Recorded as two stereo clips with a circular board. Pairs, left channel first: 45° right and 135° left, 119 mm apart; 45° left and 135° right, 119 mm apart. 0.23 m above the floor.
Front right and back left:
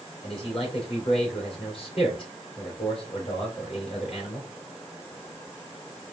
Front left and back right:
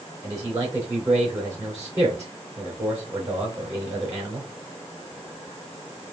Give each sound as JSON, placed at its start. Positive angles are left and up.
{"t": 0.2, "sound": "a man speaking", "azimuth_deg": -75, "distance_m": 3.0}